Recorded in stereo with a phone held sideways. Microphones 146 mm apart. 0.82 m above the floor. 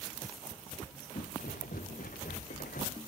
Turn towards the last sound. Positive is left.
turn(degrees=80)